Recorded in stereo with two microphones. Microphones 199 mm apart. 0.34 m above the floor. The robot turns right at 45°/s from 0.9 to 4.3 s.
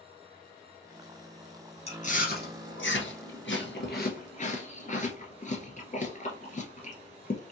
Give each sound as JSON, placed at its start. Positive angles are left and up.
{"t": 1.9, "sound": "chewing", "side_deg": 30, "distance_m": 1.4}